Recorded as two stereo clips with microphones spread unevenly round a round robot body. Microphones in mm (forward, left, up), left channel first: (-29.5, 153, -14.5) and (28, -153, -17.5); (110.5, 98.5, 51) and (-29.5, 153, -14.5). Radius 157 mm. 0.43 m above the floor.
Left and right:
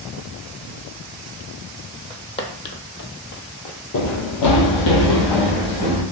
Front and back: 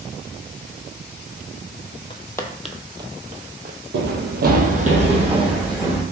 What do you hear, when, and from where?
2.1 s footsteps: 15° left, 0.8 m; by 3.8 s 115° left, 0.9 m
3.9 s running footsteps: 145° left, 0.8 m; by 6.0 s 85° left, 2 m